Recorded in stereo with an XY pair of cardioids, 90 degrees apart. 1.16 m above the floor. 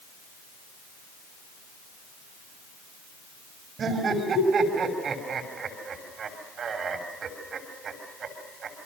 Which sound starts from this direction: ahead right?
Laughter, at 3.8 s.